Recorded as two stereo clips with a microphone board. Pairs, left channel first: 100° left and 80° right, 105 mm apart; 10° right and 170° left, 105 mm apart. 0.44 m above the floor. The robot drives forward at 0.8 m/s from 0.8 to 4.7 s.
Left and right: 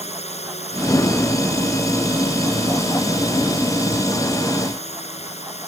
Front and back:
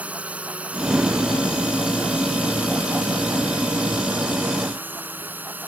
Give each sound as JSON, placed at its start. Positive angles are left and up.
{"t": 0.0, "sound": "a drone", "azimuth_deg": 90}